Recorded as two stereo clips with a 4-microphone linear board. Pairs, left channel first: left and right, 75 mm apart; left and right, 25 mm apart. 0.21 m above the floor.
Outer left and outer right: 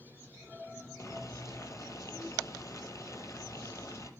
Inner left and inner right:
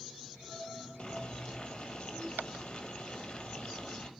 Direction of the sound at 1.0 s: 40° left (ahead or behind).